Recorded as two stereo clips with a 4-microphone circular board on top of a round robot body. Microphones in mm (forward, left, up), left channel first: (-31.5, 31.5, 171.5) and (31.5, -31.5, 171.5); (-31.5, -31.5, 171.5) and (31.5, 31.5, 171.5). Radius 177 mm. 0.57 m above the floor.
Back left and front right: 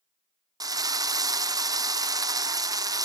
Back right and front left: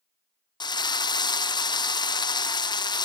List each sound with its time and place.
0.6 s a drill: 95° right, 1.1 m